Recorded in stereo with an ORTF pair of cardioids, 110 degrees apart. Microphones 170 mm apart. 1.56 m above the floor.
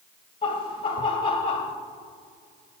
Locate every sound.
0.4 s laughter: 45° left, 1.5 m